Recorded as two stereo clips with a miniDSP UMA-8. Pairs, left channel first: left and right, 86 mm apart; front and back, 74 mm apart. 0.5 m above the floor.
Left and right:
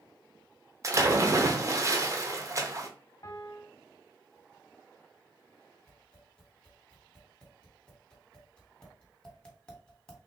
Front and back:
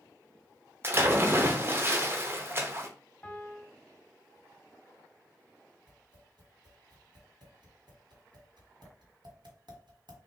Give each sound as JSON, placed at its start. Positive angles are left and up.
{"t": 0.8, "sound": "a splash", "azimuth_deg": -130, "distance_m": 0.8}
{"t": 3.2, "sound": "a piano", "azimuth_deg": 65, "distance_m": 0.7}
{"t": 5.9, "sound": "tapping", "azimuth_deg": 170, "distance_m": 1.7}